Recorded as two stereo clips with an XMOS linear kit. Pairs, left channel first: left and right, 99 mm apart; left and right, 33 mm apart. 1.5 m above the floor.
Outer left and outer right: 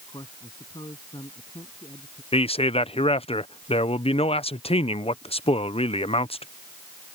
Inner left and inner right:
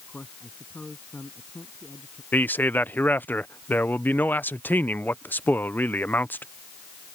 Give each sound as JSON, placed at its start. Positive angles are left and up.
{"t": 0.1, "sound": "a man speaking", "side_deg": 50}
{"t": 2.3, "sound": "a man speaking", "side_deg": 80}